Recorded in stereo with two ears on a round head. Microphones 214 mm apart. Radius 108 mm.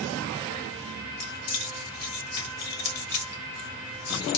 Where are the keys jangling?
75° left (ahead or behind), 1.9 m.